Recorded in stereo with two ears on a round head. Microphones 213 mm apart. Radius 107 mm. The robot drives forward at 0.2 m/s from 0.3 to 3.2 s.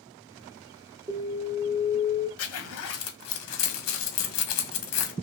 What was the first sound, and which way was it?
An alarm, 15° right (ahead or behind).